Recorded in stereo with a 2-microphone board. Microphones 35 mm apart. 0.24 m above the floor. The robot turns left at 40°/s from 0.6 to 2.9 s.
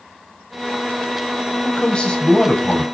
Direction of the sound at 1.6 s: 20° left (ahead or behind).